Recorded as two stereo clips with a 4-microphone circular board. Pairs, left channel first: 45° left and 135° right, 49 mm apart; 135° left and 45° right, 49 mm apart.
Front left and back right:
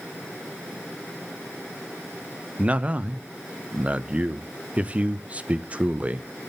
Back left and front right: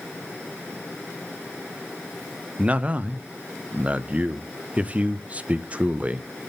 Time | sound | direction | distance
2.6 | a man speaking | 90° right | 0.5 m